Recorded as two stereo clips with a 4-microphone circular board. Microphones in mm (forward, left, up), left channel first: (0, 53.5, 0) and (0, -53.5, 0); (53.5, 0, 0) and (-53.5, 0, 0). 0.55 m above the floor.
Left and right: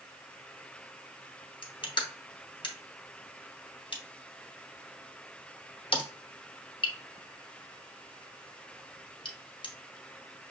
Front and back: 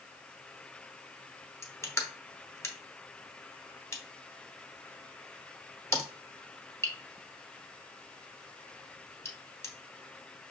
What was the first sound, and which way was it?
Crushing, 60° left.